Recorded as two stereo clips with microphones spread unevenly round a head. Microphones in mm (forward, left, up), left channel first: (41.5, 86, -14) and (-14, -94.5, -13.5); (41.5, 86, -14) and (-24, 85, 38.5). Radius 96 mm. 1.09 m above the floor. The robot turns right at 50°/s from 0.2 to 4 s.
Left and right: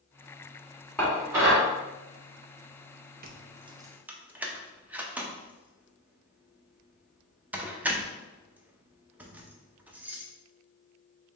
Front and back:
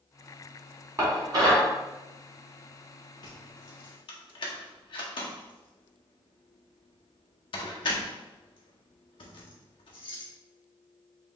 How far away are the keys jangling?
About 0.5 m.